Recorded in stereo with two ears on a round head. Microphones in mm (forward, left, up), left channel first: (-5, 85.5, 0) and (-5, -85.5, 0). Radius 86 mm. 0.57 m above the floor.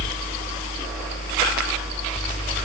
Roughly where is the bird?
I don't hear a bird.